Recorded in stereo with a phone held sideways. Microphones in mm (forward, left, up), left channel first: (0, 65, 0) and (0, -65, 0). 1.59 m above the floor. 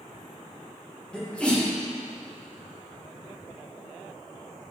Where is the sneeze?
10° left (ahead or behind), 1.8 m.